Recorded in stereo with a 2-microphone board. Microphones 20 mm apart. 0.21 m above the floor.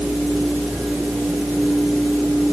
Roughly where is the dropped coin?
I don't hear a dropped coin.